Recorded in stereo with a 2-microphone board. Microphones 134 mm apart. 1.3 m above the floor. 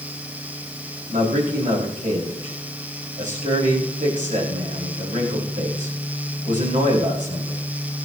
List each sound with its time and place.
1.1 s a man speaking: 75° right (ahead or behind), 8.5 m